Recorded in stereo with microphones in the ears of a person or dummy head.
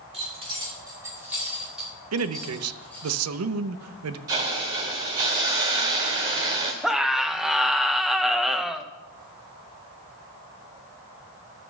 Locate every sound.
0.1 s keys jangling: 30° right (ahead or behind), 2 m; by 3.1 s 10° left (ahead or behind), 3.5 m
2.1 s a man speaking: 85° right, 0.7 m
4.3 s a hiss: 15° right (ahead or behind), 0.9 m
6.8 s a scream: centre (ahead or behind), 0.7 m